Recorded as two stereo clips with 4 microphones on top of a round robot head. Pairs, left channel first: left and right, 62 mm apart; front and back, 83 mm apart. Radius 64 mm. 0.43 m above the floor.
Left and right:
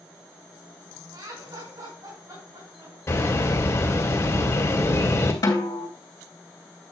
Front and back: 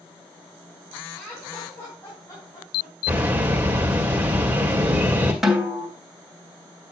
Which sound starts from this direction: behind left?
A bird, at 3.1 s.